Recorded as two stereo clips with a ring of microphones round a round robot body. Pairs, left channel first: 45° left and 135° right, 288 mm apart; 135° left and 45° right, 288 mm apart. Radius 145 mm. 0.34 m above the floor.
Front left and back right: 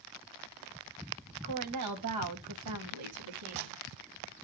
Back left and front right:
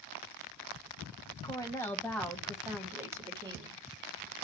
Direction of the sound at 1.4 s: 150° right.